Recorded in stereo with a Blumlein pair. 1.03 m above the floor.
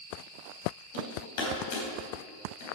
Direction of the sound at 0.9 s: 50° left.